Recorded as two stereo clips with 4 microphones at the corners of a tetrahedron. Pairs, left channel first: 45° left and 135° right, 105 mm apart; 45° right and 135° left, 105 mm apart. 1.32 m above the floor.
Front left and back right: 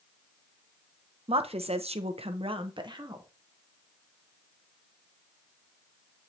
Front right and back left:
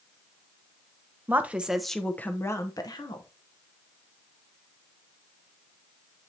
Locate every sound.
1.3 s a woman speaking: 155° right, 0.9 m; by 3.2 s 85° right, 1.1 m